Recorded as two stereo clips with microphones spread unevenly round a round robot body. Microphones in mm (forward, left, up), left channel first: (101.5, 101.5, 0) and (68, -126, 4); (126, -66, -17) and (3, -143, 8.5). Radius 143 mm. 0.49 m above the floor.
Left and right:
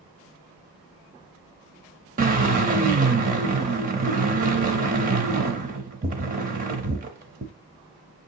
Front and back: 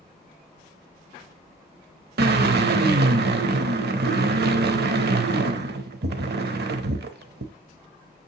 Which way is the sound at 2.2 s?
165° right.